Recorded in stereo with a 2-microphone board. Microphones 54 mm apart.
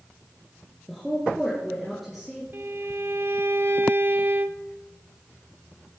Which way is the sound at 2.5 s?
50° right (ahead or behind).